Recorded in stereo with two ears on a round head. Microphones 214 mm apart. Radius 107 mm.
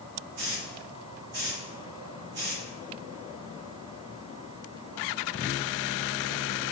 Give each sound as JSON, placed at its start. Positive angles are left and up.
{"t": 0.4, "sound": "a hiss", "side_deg": -50, "distance_m": 3.5}